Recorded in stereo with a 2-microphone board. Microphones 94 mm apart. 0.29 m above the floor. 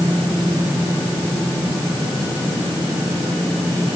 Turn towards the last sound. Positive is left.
No sound to turn to.